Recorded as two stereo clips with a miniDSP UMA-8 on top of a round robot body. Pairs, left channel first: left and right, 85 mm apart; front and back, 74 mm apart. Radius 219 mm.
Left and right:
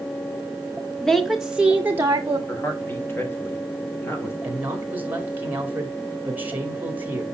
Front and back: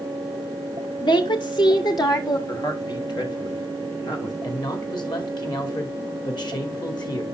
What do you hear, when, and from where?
1.0 s a woman speaking: 5° left, 1.0 m; by 2.4 s 35° right, 1.1 m
2.5 s a man speaking: 25° left, 2.5 m
4.4 s a man speaking: 20° right, 3 m